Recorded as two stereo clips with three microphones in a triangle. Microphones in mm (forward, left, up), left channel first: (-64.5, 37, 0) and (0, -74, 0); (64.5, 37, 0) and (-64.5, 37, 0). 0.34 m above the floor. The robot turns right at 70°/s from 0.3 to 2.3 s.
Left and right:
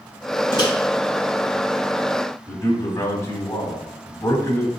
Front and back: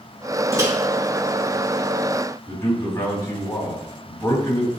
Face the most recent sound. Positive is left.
turn(degrees=60)